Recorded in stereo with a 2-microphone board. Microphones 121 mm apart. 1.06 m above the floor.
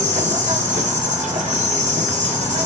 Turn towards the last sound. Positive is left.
turn(degrees=-80)